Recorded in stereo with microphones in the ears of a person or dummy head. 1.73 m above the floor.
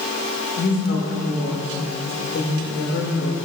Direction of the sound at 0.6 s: 75° left (ahead or behind).